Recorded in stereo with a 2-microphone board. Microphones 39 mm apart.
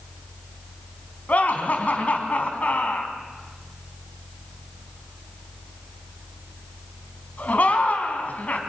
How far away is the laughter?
About 3.5 m.